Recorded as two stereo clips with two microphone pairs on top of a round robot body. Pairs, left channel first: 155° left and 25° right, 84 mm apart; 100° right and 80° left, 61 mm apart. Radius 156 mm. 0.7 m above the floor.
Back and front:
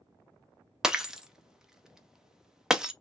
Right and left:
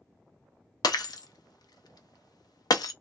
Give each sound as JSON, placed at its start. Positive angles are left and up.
{"t": 0.8, "sound": "breaking glass", "azimuth_deg": -105, "distance_m": 0.5}